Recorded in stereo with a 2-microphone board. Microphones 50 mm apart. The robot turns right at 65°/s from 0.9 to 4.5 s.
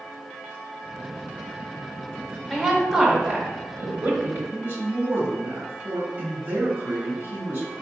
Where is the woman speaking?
165° left, 1.6 m; by 4.4 s 70° right, 1.6 m.